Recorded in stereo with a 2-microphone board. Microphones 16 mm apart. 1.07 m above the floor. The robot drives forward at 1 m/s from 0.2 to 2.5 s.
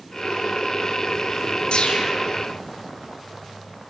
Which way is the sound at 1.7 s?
75° left (ahead or behind).